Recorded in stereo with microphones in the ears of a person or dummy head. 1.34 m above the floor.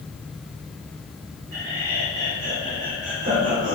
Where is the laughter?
70° right (ahead or behind), 3 m; by 3.8 s 50° right (ahead or behind), 4.5 m.